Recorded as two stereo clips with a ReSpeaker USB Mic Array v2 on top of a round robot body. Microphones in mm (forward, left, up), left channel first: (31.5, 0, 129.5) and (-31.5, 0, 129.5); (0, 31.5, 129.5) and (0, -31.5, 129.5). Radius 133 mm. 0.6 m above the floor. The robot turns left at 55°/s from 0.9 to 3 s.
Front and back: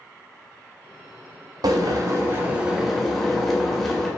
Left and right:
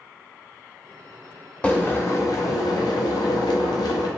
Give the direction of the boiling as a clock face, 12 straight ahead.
7 o'clock.